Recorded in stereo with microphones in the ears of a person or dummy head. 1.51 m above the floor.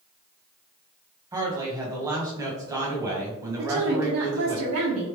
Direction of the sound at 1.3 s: 15° right (ahead or behind).